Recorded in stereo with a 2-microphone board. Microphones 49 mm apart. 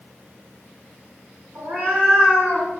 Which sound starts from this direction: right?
A cat meowing, at 1.6 s.